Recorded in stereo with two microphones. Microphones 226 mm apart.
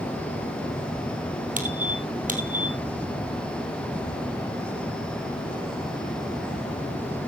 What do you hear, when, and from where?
1.6 s a squeak: 35° right (ahead or behind), 2 m